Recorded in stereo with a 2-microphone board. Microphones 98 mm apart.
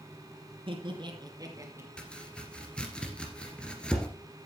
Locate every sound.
0.7 s laughter: 60° right (ahead or behind), 3 m; by 1.9 s 25° right (ahead or behind), 3 m
2.0 s chopping: 10° left (ahead or behind), 2 m